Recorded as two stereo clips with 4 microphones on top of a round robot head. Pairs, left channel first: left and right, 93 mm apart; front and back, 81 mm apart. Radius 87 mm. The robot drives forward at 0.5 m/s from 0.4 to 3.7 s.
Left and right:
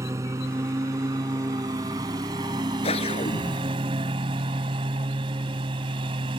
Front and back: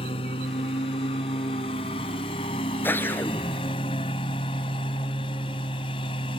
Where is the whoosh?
65° left.